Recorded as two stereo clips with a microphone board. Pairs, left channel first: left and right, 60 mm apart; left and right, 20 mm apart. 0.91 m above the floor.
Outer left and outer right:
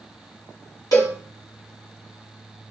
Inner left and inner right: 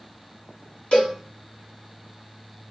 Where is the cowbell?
75° left (ahead or behind), 2.5 m.